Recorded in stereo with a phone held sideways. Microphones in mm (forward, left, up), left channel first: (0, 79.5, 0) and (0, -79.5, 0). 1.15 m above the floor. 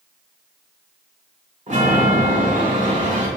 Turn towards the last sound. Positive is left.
turn(degrees=-55)  # may be behind; listen again after turning